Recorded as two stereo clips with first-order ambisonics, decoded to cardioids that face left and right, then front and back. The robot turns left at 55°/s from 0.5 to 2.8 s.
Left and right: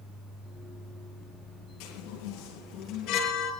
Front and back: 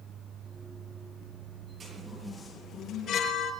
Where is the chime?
110° left, 9 m; by 3.5 s 55° left, 9 m.